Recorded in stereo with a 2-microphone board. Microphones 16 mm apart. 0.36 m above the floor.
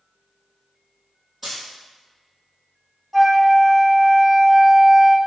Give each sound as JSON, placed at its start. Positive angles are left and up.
{"t": 1.4, "sound": "a dropped coin", "side_deg": -10, "distance_m": 1.5}
{"t": 3.1, "sound": "a flute", "side_deg": -10, "distance_m": 0.7}